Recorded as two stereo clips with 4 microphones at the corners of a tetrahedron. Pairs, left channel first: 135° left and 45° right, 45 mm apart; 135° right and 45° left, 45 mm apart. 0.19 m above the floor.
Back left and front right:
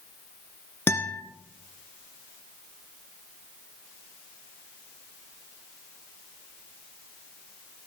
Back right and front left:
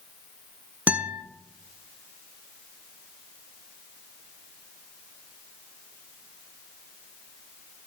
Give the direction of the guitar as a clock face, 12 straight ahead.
9 o'clock.